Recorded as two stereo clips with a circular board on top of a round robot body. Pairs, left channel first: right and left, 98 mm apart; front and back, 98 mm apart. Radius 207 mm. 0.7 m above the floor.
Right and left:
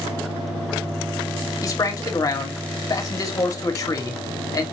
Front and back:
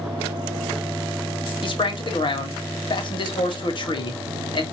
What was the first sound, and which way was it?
A man speaking, 35° right.